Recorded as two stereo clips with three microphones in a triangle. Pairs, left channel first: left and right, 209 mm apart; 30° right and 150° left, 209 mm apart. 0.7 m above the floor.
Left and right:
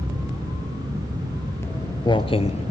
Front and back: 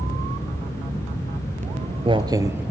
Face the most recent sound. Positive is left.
turn(degrees=75)